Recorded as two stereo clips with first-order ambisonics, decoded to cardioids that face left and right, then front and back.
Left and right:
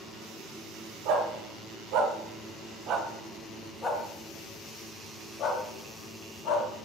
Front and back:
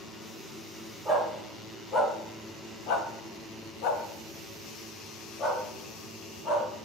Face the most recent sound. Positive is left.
turn(degrees=60)